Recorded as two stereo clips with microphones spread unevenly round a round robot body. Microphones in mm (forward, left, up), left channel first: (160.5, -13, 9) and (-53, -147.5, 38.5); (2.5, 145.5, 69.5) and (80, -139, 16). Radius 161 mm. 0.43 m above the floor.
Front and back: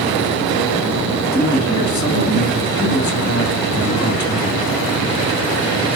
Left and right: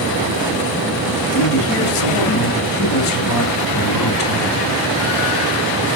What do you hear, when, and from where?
1.3 s a man speaking: 90° left, 4 m